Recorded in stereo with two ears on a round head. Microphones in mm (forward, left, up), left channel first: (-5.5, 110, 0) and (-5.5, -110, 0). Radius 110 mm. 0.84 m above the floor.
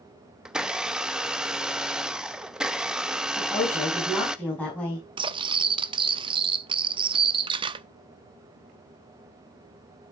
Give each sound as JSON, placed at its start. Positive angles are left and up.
{"t": 0.5, "sound": "a blender", "side_deg": -5, "distance_m": 0.6}
{"t": 3.4, "sound": "a woman speaking", "side_deg": 5, "distance_m": 5.5}
{"t": 5.2, "sound": "cutlery clinking", "side_deg": -20, "distance_m": 0.5}